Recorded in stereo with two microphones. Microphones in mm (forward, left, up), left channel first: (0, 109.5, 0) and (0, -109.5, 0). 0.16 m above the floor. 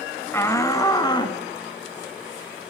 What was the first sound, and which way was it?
A shout, 10° left (ahead or behind).